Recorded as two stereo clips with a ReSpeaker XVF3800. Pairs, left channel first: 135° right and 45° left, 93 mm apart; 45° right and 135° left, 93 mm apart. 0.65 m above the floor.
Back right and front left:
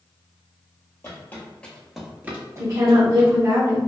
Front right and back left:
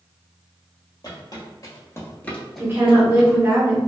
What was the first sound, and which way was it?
Footsteps, 75° right.